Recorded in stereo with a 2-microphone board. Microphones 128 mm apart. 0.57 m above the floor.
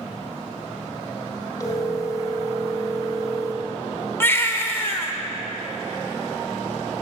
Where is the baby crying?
20° left (ahead or behind), 1.3 m.